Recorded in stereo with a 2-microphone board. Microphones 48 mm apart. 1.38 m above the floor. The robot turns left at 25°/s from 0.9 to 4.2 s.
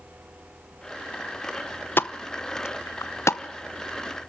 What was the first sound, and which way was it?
A pop, 50° left (ahead or behind).